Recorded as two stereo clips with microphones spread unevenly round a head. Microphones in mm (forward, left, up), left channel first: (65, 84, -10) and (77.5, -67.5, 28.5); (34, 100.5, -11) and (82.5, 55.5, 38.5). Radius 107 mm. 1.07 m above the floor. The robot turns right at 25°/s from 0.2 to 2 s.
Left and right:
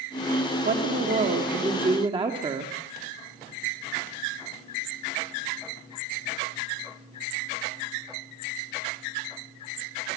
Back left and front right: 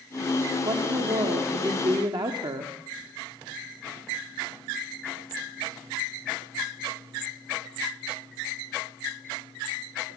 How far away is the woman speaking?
About 3 m.